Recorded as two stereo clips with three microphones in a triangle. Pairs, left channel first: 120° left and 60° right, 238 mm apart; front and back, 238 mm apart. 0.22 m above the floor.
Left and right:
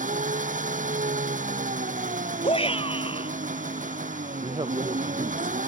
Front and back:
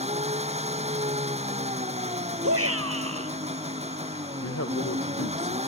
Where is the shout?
175° right.